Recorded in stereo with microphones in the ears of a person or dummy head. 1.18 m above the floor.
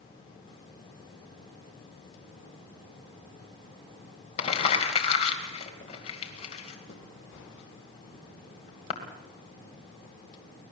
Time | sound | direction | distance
4.4 | crumpling | 35° left (ahead or behind) | 2.5 m